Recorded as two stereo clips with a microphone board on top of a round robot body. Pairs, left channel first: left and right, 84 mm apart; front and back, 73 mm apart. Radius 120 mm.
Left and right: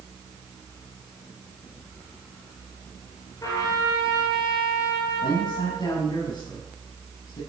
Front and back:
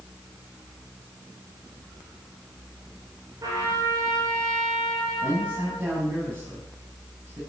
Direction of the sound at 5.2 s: 130° left.